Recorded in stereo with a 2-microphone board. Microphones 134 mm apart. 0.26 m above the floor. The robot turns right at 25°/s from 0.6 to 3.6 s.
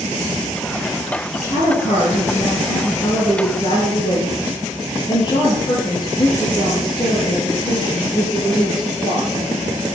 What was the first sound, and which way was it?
A woman speaking, 95° left.